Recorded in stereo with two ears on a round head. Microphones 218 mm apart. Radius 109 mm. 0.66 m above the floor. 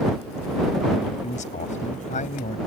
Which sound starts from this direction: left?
A man speaking, at 1.2 s.